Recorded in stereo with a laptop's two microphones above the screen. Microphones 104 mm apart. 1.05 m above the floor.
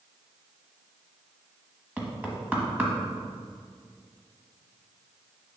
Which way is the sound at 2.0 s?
15° right (ahead or behind).